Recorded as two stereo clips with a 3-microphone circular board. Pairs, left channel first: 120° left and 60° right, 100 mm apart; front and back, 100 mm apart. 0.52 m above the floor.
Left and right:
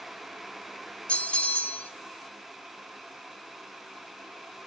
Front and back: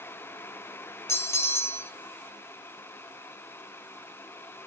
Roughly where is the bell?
Ahead left.